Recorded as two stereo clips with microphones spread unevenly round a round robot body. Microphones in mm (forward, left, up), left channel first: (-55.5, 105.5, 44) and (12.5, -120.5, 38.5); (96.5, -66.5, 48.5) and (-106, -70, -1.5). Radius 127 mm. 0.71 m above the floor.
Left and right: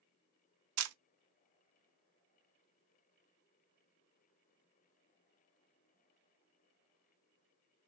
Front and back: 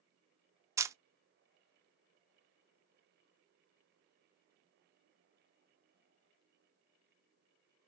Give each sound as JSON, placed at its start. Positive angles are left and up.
{"t": 0.8, "sound": "a camera shutter", "azimuth_deg": -100, "distance_m": 0.6}